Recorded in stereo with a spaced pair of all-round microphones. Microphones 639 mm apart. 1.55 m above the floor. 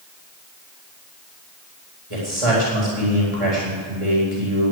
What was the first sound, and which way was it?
A man speaking, 50° right (ahead or behind).